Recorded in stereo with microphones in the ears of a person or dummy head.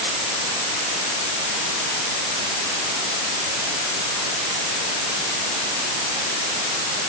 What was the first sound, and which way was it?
Only background noise.